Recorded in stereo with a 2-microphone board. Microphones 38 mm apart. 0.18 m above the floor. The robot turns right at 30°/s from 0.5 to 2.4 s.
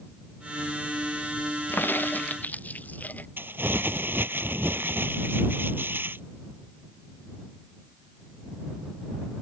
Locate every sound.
1.7 s a crack: 70° left (ahead or behind); by 3.3 s 50° left (ahead or behind)
3.4 s crumpling: 70° right (ahead or behind)